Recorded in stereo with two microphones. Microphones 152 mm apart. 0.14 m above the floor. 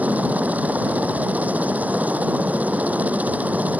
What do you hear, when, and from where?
0.0 s a helicopter: 10° right (ahead or behind)